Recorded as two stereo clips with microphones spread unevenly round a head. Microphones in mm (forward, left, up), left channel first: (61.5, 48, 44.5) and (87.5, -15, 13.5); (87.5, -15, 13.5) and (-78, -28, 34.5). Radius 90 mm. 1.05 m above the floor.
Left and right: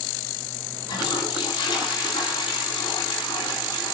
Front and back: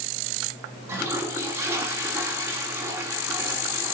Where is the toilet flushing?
105° left, 3 m.